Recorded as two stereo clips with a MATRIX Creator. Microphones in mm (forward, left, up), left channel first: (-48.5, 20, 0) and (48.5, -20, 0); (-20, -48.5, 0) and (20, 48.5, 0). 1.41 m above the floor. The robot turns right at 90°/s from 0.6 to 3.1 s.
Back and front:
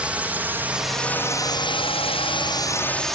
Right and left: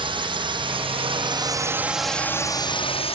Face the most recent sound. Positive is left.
turn(degrees=-115)